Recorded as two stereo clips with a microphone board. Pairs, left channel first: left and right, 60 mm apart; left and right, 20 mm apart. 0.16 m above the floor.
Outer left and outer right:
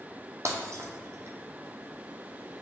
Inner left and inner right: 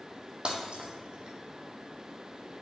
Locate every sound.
0.5 s breaking glass: 55° right (ahead or behind), 1.4 m